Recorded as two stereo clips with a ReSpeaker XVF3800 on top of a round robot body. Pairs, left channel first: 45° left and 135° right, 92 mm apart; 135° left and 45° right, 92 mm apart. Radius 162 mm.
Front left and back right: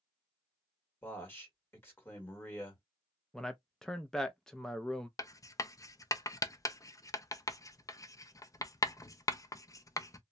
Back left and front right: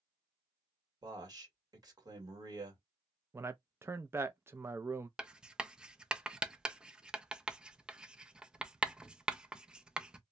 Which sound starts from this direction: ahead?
A man speaking, at 1.0 s.